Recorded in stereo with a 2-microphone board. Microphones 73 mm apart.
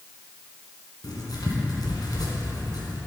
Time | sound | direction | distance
1.0 | writing | 65° left (ahead or behind) | 1.8 m